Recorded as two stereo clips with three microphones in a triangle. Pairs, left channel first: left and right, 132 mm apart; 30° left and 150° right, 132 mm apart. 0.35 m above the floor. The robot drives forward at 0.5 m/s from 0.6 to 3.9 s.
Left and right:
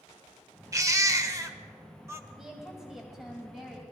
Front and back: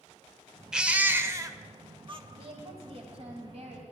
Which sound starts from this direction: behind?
A woman speaking, at 2.3 s.